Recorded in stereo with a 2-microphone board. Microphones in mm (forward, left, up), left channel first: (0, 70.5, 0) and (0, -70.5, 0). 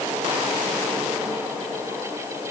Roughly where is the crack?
I don't hear a crack.